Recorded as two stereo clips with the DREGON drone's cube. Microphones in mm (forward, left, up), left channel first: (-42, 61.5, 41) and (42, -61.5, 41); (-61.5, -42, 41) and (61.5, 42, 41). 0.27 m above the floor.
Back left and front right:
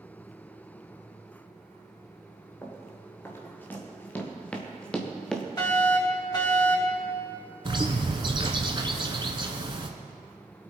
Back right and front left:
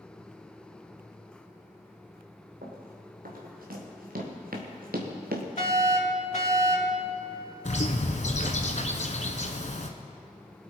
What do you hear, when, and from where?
2.6 s running footsteps: 50° left, 4 m; by 5.5 s 35° left, 2.5 m
5.6 s a fire alarm: 175° right, 4.5 m
7.7 s a bird: 110° right, 1.4 m